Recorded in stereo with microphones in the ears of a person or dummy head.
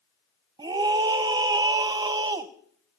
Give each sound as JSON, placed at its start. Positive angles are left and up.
{"t": 0.6, "sound": "a scream", "side_deg": -25, "distance_m": 0.8}